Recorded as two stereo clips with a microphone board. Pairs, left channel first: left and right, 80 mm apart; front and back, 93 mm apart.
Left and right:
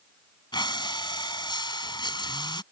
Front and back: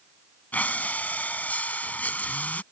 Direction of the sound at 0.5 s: 70° left.